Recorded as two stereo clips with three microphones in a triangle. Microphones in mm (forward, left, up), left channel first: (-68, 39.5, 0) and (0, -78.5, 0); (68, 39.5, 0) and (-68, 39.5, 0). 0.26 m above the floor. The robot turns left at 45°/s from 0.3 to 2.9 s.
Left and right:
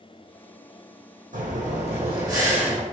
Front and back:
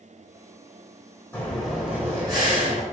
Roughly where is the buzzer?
No buzzer in this recording.